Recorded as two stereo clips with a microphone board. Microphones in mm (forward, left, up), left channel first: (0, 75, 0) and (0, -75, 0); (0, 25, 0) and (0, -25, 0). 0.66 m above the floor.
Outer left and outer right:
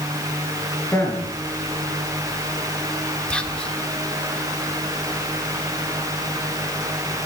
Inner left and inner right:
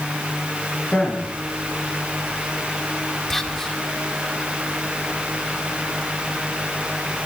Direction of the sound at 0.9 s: 15° left (ahead or behind).